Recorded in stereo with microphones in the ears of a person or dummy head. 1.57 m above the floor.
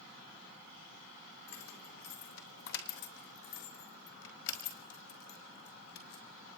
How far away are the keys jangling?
About 2.5 m.